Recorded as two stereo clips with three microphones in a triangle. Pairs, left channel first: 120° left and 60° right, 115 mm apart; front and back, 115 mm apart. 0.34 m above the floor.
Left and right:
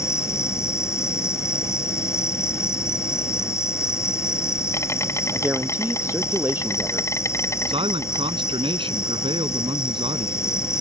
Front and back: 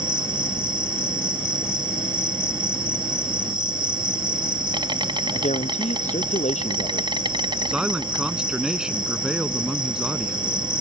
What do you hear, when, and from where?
0.0 s an insect: 170° left
5.3 s a woman speaking: 10° left
7.7 s a man speaking: 95° right